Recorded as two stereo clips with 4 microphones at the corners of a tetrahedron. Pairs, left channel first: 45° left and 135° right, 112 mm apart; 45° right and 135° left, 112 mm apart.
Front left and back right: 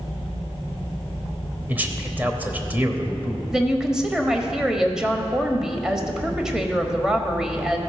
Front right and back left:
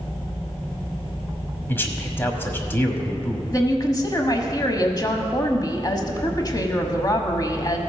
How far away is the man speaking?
About 1.1 m.